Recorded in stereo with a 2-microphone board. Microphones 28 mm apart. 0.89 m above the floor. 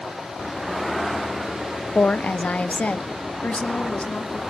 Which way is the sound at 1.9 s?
55° left (ahead or behind).